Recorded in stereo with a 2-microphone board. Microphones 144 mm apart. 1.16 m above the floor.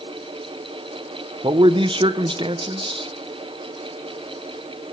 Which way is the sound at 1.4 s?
35° right (ahead or behind).